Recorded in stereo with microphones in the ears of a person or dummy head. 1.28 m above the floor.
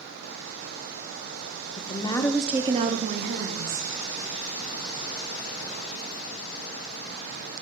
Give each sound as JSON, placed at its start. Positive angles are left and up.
{"t": 1.8, "sound": "a woman speaking", "side_deg": 35, "distance_m": 1.0}